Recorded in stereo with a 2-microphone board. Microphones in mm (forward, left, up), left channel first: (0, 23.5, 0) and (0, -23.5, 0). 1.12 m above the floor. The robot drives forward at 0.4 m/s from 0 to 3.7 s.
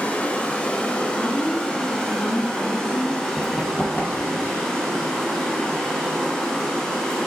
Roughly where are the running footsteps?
Left.